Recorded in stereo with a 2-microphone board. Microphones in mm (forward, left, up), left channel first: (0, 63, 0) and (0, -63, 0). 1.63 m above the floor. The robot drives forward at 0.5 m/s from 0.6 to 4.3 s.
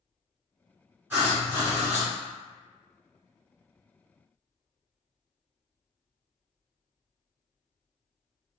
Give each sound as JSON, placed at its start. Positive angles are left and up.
{"t": 1.1, "sound": "writing", "side_deg": -15, "distance_m": 1.6}